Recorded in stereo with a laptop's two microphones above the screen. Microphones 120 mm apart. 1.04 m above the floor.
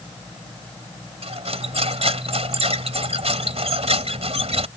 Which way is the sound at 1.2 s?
55° right (ahead or behind).